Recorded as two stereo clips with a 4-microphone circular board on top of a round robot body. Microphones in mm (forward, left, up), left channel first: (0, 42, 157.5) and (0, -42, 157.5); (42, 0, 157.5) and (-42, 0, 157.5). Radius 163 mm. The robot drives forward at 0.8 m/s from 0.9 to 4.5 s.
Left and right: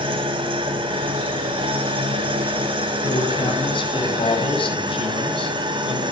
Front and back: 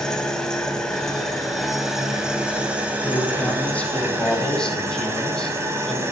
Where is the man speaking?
70° left, 5.5 m; by 6.0 s 85° left, 5 m.